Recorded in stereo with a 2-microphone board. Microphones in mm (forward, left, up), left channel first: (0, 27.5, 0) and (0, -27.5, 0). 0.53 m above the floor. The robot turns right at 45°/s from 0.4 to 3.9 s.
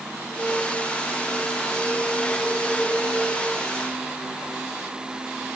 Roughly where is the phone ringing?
No phone ringing in this recording.